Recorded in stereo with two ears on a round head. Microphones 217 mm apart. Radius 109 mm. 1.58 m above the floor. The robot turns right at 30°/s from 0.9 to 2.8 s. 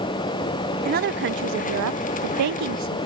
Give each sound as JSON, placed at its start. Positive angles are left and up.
{"t": 0.8, "sound": "a woman speaking", "azimuth_deg": -140, "distance_m": 0.9}